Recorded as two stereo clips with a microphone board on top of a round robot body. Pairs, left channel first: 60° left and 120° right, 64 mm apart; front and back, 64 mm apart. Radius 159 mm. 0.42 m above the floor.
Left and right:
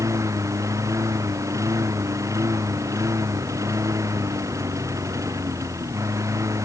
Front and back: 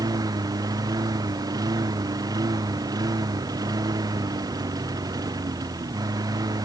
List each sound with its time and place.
0.0 s a lawn mower: 160° right